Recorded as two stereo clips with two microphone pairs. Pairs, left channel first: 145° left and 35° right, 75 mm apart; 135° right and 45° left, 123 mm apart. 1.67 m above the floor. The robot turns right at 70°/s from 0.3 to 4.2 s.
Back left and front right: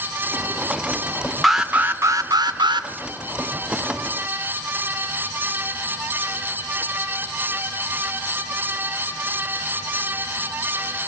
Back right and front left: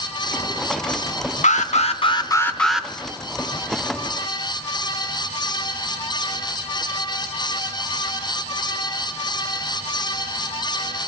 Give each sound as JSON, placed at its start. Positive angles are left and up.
{"t": 1.4, "sound": "an alarm", "azimuth_deg": -130, "distance_m": 0.5}